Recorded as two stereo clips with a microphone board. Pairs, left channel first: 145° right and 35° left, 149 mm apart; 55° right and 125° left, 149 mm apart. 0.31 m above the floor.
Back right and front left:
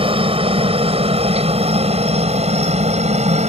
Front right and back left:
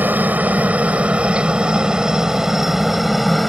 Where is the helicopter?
55° left; by 3.5 s 35° left.